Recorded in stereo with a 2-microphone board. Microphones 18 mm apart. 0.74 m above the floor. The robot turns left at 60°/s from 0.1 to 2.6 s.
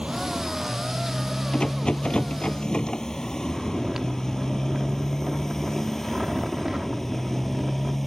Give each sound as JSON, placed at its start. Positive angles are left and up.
{"t": 0.0, "sound": "a motorcycle", "side_deg": -80}
{"t": 1.5, "sound": "a rattle", "azimuth_deg": 120}
{"t": 3.4, "sound": "snoring", "side_deg": -25}